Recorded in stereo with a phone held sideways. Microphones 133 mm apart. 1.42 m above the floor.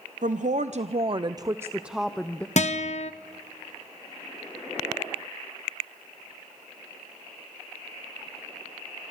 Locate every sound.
0.2 s a woman speaking: 70° right (ahead or behind), 0.8 m; by 2.5 s 10° left (ahead or behind), 0.8 m
2.6 s a guitar: 60° left (ahead or behind), 0.9 m